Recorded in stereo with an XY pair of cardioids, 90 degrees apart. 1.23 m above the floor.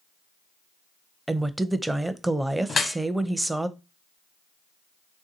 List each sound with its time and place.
1.3 s a woman speaking: 15° right, 0.5 m
2.7 s dripping: 45° left, 1.1 m